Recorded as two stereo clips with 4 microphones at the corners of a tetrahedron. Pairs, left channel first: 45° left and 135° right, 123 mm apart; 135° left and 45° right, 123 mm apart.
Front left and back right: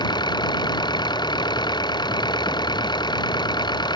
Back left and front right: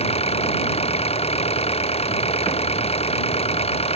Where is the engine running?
100° left.